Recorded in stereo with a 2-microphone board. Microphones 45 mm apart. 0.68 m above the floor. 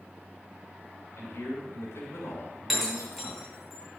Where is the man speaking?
80° left, 4 m.